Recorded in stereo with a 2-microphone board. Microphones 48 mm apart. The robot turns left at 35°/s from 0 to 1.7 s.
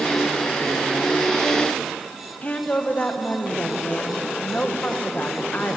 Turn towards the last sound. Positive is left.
turn(degrees=30)  # may be behind; listen again after turning